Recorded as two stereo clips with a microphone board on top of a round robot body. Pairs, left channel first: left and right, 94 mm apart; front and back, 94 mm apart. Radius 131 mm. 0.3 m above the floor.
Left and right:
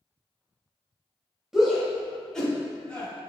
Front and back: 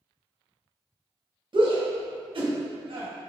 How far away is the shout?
About 2.5 m.